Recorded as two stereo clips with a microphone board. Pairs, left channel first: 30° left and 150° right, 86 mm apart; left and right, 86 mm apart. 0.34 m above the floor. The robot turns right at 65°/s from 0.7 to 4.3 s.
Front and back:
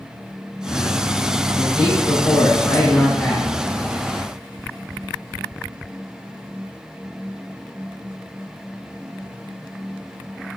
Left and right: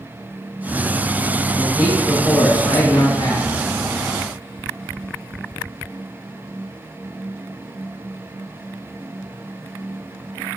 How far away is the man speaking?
About 3.5 m.